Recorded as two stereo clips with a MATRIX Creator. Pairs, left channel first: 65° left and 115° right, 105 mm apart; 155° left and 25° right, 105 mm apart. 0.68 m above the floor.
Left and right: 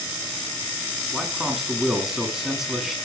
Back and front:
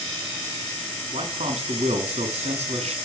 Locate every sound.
1.1 s a man speaking: 25° right, 6 m